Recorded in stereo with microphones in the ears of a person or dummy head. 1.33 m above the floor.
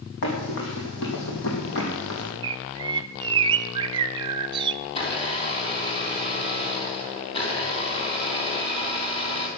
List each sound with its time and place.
0.2 s running footsteps: 70° left (ahead or behind), 5 m; by 2.3 s 65° left (ahead or behind), 3.5 m
2.4 s a bird: 25° right (ahead or behind), 0.6 m
4.8 s a blender: 25° left (ahead or behind), 3 m